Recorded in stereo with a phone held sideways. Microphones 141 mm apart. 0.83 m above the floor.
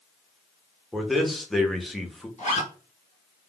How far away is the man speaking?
About 0.7 m.